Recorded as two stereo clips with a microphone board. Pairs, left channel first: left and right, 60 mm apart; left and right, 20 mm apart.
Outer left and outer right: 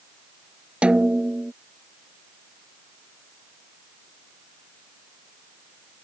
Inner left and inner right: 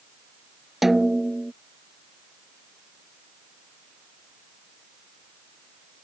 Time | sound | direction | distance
0.8 | a snare drum | 20° right (ahead or behind) | ?